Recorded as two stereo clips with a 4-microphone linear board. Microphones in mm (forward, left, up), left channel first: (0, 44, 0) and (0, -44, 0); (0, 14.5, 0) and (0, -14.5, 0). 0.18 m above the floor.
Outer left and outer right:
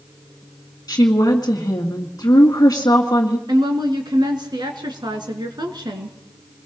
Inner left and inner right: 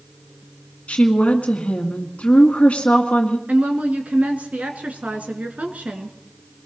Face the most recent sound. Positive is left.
turn(degrees=-55)  # may be behind; listen again after turning